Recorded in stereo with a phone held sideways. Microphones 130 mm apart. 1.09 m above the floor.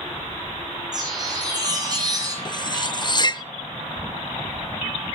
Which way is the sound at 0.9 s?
30° right (ahead or behind).